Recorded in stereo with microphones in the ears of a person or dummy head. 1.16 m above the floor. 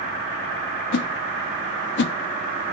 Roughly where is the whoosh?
Left.